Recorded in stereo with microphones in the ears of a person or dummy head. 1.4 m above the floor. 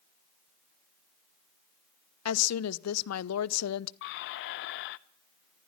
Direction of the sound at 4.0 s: 60° left (ahead or behind).